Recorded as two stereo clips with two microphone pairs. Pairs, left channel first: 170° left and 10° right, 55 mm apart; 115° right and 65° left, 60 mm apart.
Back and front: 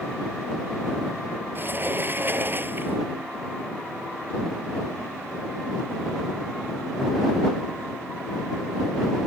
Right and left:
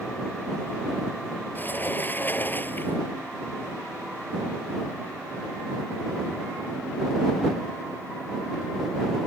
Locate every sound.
1.6 s a sliding door: 60° right